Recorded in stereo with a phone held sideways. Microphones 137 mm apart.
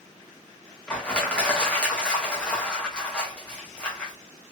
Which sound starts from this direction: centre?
Crushing, at 0.9 s.